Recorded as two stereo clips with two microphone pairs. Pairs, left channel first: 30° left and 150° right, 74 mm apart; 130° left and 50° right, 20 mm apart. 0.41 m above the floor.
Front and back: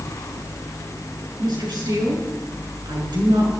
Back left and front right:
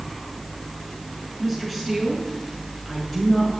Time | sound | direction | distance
1.4 | a woman speaking | 145° right | 6.5 m